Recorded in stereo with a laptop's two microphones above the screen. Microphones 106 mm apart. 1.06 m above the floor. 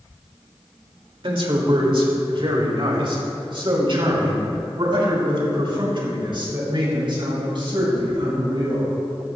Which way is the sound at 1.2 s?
60° right (ahead or behind).